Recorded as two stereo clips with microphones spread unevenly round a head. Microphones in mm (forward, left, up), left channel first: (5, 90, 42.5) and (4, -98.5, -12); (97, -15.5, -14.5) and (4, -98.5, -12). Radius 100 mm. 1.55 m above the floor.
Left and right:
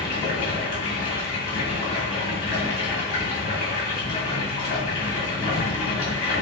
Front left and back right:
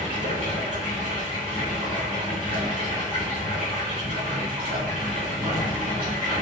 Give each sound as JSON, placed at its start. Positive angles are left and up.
{"t": 0.0, "sound": "running water", "azimuth_deg": 145, "distance_m": 1.5}